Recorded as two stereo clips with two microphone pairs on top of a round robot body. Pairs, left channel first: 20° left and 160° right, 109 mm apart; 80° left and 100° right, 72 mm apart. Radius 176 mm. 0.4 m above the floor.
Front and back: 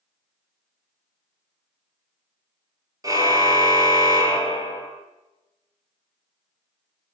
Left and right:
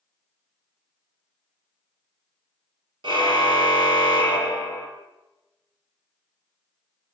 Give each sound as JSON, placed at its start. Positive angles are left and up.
{"t": 3.0, "sound": "a car horn", "azimuth_deg": -105, "distance_m": 5.0}